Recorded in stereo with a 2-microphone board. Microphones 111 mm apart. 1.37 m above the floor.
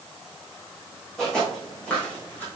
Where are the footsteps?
5° left (ahead or behind), 4.5 m; by 2.5 s 15° left (ahead or behind), 4 m.